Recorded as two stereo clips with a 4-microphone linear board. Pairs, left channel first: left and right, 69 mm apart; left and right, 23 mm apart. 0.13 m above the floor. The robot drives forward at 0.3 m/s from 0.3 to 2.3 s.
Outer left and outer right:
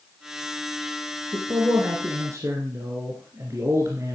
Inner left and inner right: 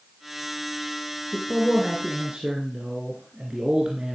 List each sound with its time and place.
1.3 s a man speaking: 45° right (ahead or behind), 1.9 m